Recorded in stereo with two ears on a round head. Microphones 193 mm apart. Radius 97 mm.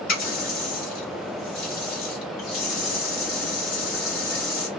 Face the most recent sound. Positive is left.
turn(degrees=45)  # may be behind; listen again after turning